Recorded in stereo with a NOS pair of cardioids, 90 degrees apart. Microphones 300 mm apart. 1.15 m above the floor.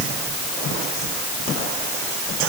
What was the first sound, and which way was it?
Only background noise.